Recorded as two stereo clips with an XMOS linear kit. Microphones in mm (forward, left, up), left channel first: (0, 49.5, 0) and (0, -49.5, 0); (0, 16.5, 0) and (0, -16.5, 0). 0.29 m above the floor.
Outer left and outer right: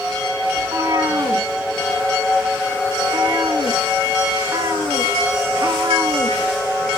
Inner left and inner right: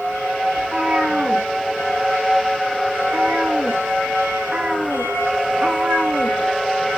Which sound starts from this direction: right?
A cat meowing, at 0.6 s.